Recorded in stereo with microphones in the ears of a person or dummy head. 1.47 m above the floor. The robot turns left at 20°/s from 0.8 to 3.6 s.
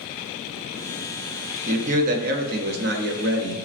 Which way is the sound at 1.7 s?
45° right.